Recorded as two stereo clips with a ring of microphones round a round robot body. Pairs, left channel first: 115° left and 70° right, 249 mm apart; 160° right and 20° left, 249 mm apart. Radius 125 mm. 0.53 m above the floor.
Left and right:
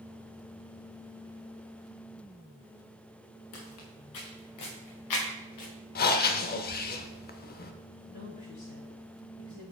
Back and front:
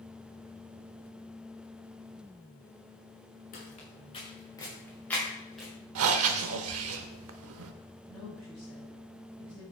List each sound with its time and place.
3.5 s footsteps: 145° left, 3 m; by 5.7 s 115° left, 4.5 m
6.0 s breathing: 60° left, 0.7 m
8.1 s a woman speaking: 130° left, 5 m